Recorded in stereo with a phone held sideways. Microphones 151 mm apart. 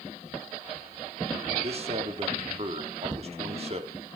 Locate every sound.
1.6 s a man speaking: 40° right (ahead or behind), 2.5 m